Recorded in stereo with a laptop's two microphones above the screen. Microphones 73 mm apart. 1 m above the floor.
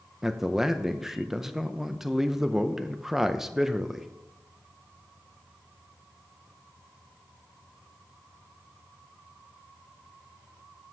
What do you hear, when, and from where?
0.2 s a man speaking: 5° right (ahead or behind), 0.6 m